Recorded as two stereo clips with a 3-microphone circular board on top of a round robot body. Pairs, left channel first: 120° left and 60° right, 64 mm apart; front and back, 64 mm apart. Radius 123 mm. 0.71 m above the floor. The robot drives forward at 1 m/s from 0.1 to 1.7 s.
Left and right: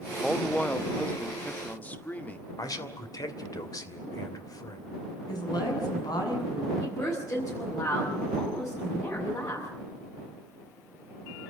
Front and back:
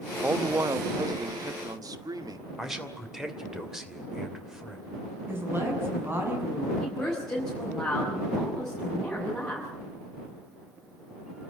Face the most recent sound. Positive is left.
turn(degrees=85)